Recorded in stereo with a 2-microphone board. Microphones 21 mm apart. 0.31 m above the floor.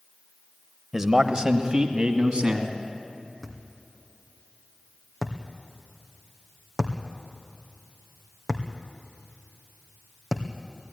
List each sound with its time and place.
0.9 s a man speaking: 25° right (ahead or behind), 1.1 m; by 2.8 s 40° right (ahead or behind), 3 m
3.4 s a thud: centre (ahead or behind), 2 m